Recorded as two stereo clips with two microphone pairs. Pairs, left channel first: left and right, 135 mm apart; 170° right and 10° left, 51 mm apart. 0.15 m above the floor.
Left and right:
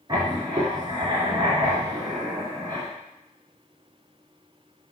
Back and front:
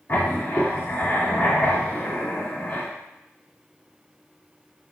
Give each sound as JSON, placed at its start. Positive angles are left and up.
{"t": 0.1, "sound": "writing", "azimuth_deg": -140, "distance_m": 2.5}